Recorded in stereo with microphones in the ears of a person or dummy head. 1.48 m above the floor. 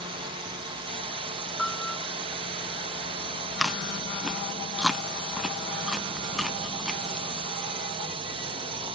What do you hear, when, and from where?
0.0 s a drone: 30° right (ahead or behind)
1.6 s a piano: 5° left (ahead or behind)
3.6 s chewing: 5° right (ahead or behind)